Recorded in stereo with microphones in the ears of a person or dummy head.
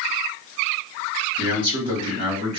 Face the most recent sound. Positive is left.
turn(degrees=-25)  # may be behind; listen again after turning